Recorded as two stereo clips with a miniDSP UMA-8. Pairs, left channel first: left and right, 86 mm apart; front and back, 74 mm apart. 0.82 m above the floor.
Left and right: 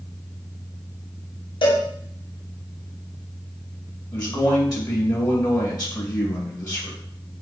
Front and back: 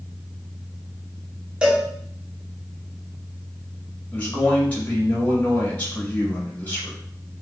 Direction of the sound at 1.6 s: 100° left.